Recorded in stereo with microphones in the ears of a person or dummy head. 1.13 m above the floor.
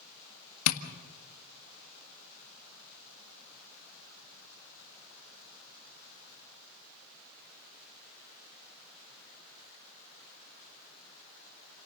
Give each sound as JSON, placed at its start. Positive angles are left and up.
{"t": 0.7, "sound": "tapping", "side_deg": 80, "distance_m": 1.6}